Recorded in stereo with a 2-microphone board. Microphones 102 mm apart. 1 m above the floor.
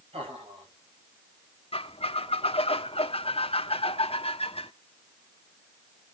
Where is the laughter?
70° right (ahead or behind), 5.5 m.